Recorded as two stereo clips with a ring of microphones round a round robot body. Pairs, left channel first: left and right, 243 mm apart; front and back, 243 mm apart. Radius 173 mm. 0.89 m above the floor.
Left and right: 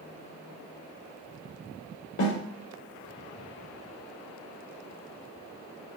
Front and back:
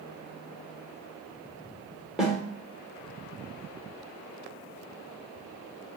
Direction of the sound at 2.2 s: 90° left.